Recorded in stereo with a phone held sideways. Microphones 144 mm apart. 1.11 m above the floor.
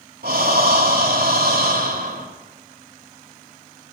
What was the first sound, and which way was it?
Breathing, 85° right.